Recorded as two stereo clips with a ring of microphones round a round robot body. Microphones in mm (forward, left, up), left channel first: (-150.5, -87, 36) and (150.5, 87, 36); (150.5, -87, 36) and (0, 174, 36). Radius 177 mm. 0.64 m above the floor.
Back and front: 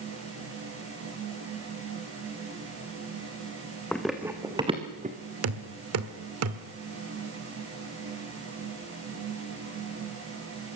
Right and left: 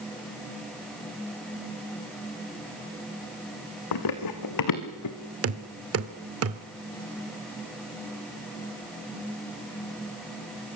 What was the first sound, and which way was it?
Running footsteps, 65° right.